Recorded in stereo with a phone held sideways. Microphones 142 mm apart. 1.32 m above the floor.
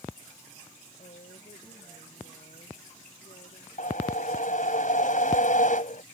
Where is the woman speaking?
85° left; by 3.7 s 75° left (ahead or behind).